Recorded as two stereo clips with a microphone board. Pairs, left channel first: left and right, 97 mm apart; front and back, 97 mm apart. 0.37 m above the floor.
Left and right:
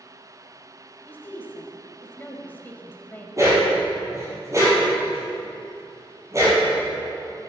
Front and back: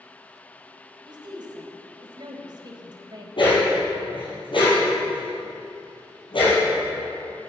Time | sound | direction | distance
1.1 | a woman speaking | 155° left | 1.5 m
3.4 | a dog barking | 30° right | 4.5 m